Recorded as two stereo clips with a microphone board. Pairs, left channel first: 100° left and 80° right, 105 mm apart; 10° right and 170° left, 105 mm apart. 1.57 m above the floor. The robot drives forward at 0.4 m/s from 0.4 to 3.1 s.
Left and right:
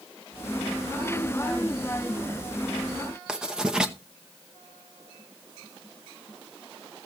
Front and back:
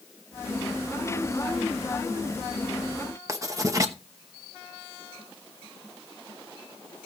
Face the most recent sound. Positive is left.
turn(degrees=-160)